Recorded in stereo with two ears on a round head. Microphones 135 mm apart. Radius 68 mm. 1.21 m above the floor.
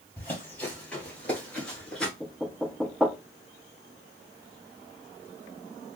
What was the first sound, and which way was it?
Running footsteps, 10° left (ahead or behind).